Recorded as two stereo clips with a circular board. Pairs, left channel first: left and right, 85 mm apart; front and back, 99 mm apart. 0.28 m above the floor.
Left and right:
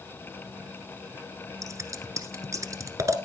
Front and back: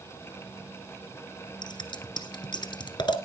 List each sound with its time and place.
1.6 s scissors: 40° right, 1.5 m